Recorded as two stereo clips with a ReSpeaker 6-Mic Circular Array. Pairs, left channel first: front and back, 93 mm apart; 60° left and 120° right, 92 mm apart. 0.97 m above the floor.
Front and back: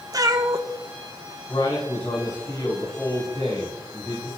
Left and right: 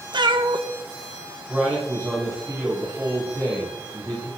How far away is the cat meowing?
About 0.7 m.